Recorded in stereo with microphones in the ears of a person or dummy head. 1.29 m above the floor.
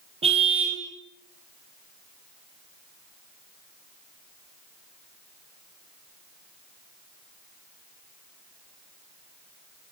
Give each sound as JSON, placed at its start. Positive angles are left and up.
{"t": 0.2, "sound": "a car horn", "side_deg": -35, "distance_m": 3.5}